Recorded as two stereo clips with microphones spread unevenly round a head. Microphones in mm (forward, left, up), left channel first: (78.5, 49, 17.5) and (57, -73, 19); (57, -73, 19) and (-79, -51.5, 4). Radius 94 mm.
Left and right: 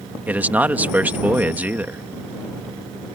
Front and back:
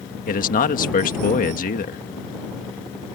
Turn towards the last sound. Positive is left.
turn(degrees=-25)